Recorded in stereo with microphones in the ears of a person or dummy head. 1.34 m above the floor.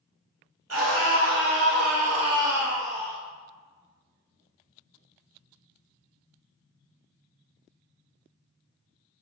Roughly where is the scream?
Right.